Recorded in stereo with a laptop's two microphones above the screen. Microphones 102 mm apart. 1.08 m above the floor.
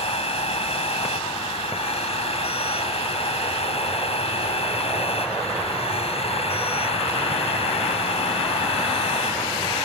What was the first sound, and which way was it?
A machine running, 70° left (ahead or behind).